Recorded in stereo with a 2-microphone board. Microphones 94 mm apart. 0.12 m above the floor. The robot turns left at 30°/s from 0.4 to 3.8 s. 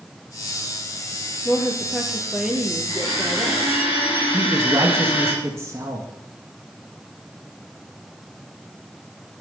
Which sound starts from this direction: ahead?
A woman speaking, at 1.4 s.